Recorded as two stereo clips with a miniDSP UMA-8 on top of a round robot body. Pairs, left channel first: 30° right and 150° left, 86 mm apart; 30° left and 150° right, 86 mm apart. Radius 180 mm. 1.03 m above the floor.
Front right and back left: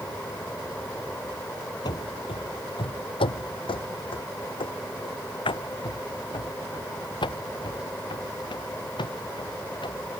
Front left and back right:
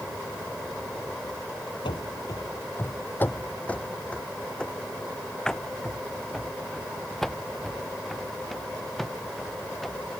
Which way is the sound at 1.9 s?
10° left.